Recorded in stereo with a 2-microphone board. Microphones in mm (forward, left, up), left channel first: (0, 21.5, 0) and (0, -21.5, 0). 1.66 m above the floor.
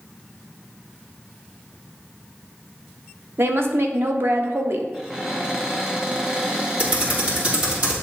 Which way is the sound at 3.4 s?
60° right (ahead or behind).